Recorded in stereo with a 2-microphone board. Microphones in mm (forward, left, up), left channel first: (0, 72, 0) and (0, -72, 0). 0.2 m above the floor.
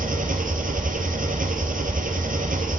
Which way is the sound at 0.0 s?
75° right (ahead or behind).